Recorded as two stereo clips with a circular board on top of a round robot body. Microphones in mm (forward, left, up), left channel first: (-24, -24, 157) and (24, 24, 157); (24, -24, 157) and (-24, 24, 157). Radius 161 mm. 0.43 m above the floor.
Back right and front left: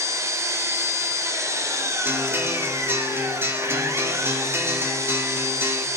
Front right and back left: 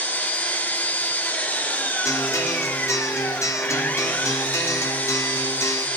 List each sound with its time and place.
0.0 s an engine running: 15° left, 1.7 m
2.0 s a guitar: 5° right, 1.8 m